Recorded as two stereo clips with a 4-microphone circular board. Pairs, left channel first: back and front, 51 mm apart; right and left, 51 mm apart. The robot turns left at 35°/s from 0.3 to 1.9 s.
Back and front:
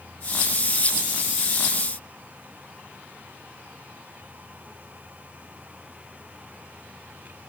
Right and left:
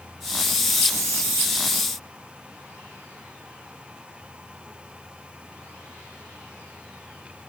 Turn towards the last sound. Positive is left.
No sound to turn to.